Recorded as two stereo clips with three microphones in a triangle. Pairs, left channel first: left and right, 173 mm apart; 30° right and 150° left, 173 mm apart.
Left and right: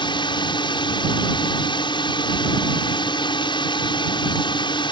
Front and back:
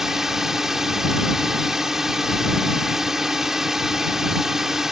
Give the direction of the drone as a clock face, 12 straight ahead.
10 o'clock.